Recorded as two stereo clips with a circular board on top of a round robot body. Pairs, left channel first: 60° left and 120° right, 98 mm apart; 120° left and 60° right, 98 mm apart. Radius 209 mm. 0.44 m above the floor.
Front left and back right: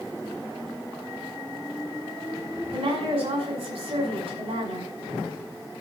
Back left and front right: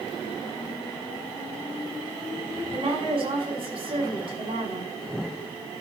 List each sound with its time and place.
2.7 s a woman speaking: 95° right, 5.5 m